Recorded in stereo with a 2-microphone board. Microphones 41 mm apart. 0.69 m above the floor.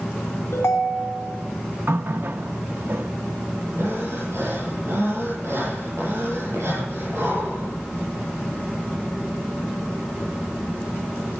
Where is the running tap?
60° right (ahead or behind), 0.6 m.